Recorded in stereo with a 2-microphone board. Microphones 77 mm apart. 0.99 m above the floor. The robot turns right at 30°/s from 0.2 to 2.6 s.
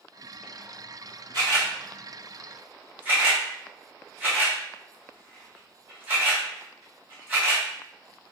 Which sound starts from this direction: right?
A camera shutter, at 1.3 s.